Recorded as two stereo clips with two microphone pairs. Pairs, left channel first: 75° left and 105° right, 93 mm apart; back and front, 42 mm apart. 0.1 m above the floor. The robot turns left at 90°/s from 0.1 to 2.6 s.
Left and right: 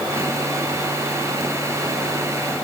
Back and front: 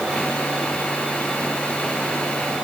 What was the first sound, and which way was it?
Only background noise.